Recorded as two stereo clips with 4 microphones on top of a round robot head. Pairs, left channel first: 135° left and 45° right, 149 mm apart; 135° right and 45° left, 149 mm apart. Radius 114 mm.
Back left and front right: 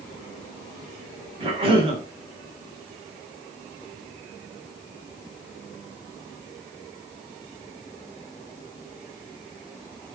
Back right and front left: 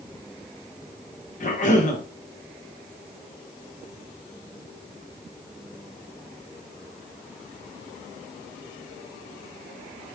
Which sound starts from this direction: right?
A cough, at 1.4 s.